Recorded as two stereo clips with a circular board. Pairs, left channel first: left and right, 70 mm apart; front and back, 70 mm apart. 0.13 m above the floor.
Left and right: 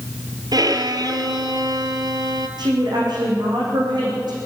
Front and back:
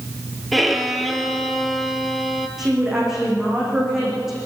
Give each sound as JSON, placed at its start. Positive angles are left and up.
{"t": 0.5, "sound": "a violin", "azimuth_deg": -90, "distance_m": 1.7}
{"t": 2.6, "sound": "a woman speaking", "azimuth_deg": -95, "distance_m": 8.0}